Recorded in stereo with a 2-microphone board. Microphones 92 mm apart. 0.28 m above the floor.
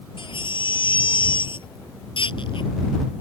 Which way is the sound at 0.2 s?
75° left (ahead or behind).